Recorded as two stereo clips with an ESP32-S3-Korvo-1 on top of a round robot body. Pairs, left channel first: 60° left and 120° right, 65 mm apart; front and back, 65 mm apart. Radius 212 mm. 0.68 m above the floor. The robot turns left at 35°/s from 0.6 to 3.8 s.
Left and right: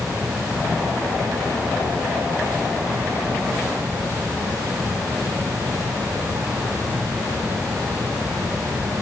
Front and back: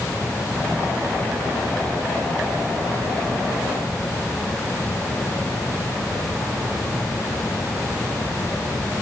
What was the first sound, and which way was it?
Only background noise.